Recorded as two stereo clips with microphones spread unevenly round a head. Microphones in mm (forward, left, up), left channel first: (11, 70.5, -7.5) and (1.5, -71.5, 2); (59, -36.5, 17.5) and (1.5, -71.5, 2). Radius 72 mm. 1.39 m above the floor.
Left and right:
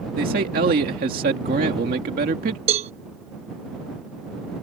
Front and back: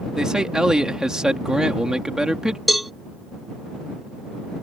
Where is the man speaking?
65° right.